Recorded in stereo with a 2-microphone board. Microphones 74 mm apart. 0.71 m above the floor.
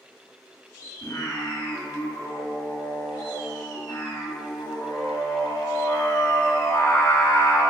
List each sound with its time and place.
1.0 s singing: 50° left (ahead or behind), 1.7 m